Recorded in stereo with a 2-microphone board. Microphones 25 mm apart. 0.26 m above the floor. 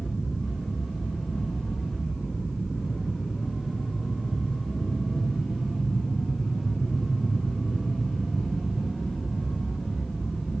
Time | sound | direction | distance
0.0 | an aircraft | 30° left (ahead or behind) | ?